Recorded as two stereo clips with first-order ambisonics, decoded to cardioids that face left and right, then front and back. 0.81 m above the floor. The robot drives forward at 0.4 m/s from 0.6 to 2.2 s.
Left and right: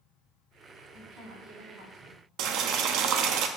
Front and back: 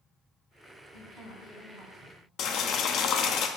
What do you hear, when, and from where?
0.9 s a woman speaking: 50° right, 3.5 m; by 2.2 s 55° right, 3 m
2.4 s boiling: 50° right, 0.6 m